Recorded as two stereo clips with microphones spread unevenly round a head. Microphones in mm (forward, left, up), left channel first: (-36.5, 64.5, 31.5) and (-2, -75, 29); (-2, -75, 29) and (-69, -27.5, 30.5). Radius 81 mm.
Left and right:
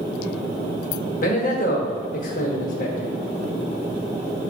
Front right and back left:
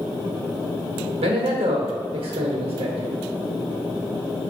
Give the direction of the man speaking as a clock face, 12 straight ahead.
7 o'clock.